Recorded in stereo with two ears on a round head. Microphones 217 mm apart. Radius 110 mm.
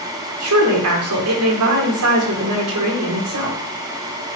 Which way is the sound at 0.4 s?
70° right (ahead or behind).